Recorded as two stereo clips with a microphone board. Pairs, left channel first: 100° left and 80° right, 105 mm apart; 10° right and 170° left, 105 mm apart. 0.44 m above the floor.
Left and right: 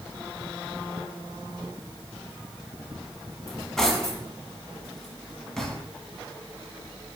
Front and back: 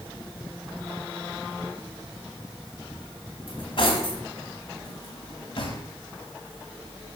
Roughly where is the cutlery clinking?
Ahead.